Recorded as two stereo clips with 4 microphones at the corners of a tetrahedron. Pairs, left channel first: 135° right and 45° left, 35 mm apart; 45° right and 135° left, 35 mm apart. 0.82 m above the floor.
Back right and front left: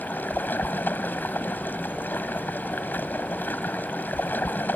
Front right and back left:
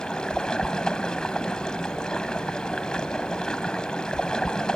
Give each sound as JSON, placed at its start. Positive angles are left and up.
{"t": 0.0, "sound": "running water", "azimuth_deg": -110}